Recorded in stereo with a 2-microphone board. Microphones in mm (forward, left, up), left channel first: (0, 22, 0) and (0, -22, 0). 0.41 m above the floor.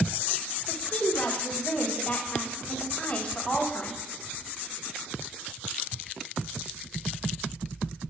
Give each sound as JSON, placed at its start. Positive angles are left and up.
{"t": 0.7, "sound": "a woman speaking", "side_deg": 30, "distance_m": 2.5}